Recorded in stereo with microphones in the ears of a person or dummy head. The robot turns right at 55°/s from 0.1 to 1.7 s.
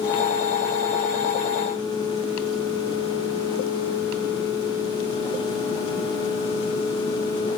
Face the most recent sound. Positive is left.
No sound to turn to.